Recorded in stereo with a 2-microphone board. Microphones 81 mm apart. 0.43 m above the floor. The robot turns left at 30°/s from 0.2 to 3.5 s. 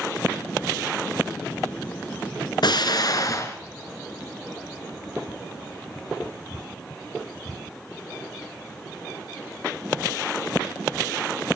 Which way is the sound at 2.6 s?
65° left (ahead or behind).